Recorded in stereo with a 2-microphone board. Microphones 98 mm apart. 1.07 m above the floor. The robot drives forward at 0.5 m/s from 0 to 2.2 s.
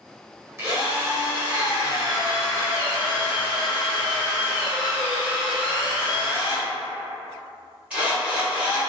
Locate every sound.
0.6 s a drill: 30° right (ahead or behind), 0.8 m; by 8.8 s 15° right (ahead or behind), 1.6 m